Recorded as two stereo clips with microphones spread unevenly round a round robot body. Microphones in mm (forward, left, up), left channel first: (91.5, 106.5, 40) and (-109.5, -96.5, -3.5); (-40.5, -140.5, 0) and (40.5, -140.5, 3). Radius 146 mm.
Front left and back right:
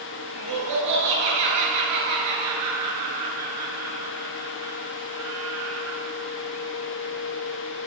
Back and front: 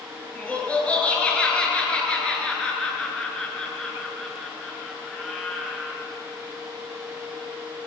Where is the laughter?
105° right, 9.5 m; by 6.0 s 90° right, 7.5 m.